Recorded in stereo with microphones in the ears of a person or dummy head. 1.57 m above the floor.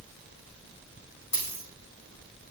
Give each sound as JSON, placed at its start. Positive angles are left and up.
{"t": 1.3, "sound": "a dropped coin", "side_deg": 20, "distance_m": 4.0}